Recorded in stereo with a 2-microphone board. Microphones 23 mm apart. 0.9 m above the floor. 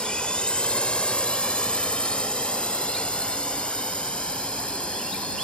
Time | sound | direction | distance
0.0 | a drone | 50° left (ahead or behind) | ?